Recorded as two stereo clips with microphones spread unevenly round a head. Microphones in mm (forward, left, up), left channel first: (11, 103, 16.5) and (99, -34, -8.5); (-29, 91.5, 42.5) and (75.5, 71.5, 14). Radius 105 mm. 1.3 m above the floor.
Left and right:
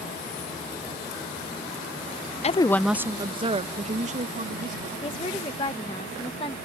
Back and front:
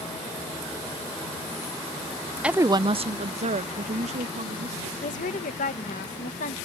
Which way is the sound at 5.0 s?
170° right.